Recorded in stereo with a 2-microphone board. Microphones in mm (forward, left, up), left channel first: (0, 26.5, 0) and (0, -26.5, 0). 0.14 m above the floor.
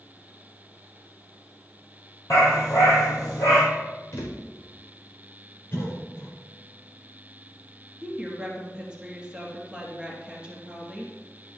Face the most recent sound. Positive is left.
turn(degrees=-15)  # may be behind; listen again after turning